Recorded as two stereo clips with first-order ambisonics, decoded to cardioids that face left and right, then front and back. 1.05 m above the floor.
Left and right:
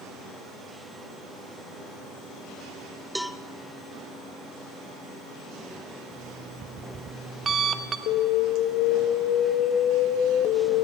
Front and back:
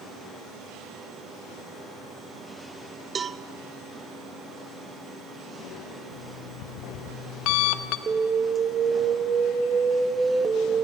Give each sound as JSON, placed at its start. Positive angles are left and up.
{"t": 3.1, "sound": "a cowbell", "azimuth_deg": 175, "distance_m": 0.6}
{"t": 6.1, "sound": "an alarm clock", "azimuth_deg": -20, "distance_m": 1.0}
{"t": 8.1, "sound": "an alarm", "azimuth_deg": 110, "distance_m": 1.5}